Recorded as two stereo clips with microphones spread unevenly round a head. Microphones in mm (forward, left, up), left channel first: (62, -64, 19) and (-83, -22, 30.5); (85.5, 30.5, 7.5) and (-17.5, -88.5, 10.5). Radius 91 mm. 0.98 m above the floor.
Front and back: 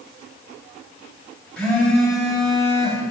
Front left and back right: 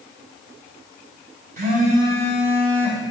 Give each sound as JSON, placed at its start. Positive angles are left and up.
{"t": 1.6, "sound": "a phone buzzing", "azimuth_deg": -100, "distance_m": 1.7}